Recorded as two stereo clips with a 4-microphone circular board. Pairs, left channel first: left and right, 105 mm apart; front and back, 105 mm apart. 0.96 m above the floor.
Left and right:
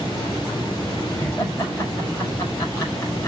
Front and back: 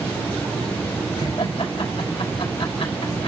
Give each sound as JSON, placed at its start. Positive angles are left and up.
{"t": 1.2, "sound": "laughter", "azimuth_deg": 25, "distance_m": 4.5}